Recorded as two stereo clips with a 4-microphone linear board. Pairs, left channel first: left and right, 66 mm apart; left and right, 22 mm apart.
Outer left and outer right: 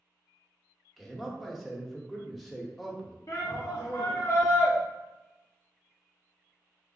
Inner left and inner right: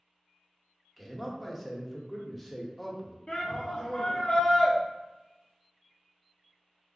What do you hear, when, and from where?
1.0 s a man speaking: centre (ahead or behind), 0.9 m
3.3 s a shout: 50° left (ahead or behind), 0.7 m